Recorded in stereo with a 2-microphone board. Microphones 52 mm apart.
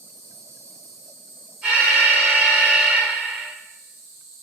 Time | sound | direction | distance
0.0 | an insect | 10° right (ahead or behind) | 1.6 m
1.6 | an alarm | 25° right (ahead or behind) | 2 m